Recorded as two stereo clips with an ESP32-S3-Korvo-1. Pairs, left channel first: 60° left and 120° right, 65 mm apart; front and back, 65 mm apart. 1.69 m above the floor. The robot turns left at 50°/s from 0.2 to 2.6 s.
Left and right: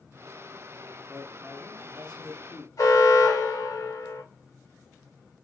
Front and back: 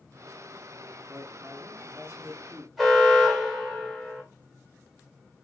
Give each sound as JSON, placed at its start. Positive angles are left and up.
{"t": 1.1, "sound": "a man speaking", "azimuth_deg": -175, "distance_m": 1.4}
{"t": 2.8, "sound": "an alarm", "azimuth_deg": 90, "distance_m": 2.0}